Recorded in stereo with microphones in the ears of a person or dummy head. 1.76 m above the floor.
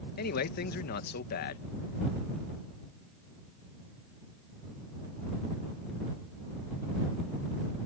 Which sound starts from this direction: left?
A man speaking, at 0.2 s.